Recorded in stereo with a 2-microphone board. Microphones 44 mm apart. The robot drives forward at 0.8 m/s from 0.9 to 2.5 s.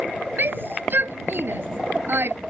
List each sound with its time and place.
0.4 s a shout: 55° right (ahead or behind); by 2.4 s 60° right (ahead or behind)